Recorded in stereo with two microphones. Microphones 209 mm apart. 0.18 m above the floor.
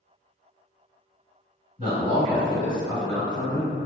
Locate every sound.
1.8 s a man speaking: 25° right (ahead or behind), 1.6 m